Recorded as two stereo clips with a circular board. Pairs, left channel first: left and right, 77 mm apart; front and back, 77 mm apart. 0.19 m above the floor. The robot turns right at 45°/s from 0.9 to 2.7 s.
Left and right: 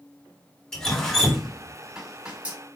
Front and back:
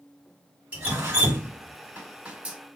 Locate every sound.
0.7 s dripping: 155° left, 1.4 m; by 2.6 s 130° right, 1.4 m